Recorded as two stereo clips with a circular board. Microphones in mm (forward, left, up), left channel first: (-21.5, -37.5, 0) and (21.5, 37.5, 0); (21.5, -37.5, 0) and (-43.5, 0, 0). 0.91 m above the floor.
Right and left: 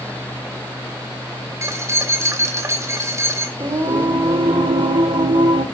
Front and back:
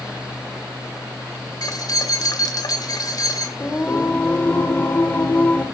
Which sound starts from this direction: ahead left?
Singing, at 3.6 s.